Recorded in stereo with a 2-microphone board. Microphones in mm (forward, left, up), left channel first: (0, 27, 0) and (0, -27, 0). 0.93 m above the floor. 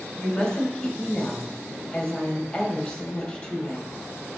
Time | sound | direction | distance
0.2 | a woman speaking | 15° left (ahead or behind) | 2.5 m